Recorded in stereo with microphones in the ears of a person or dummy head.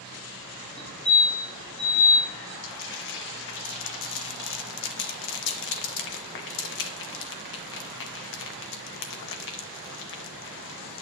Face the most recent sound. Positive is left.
turn(degrees=55)  # may be behind; listen again after turning